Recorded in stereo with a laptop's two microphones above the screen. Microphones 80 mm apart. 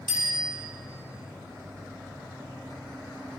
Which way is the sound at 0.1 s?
85° right.